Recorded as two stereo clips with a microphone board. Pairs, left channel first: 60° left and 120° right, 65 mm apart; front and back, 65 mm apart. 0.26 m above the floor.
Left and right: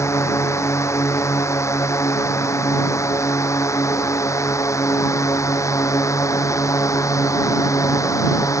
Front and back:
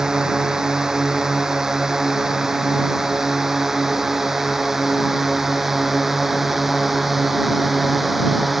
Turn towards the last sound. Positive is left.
turn(degrees=90)